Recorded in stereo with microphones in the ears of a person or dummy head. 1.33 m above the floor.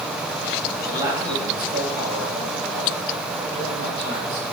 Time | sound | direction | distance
0.9 | a man speaking | 15° right (ahead or behind) | 2 m